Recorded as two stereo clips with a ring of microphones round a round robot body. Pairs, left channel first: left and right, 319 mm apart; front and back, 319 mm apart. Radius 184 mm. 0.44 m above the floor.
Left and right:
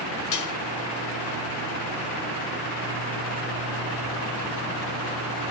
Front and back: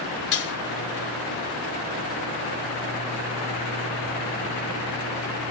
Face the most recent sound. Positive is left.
turn(degrees=55)